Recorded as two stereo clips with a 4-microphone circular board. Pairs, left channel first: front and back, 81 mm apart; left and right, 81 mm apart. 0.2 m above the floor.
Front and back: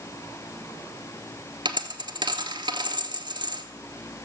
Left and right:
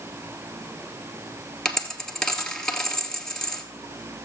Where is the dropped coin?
175° left, 1.2 m.